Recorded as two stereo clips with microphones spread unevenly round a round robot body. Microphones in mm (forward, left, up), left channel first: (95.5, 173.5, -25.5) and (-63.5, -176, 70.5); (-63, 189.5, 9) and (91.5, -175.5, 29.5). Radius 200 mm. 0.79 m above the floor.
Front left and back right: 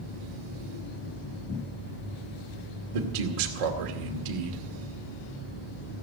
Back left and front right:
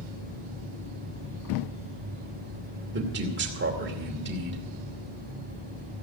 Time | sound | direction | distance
2.9 | a man speaking | 135° right | 2.5 m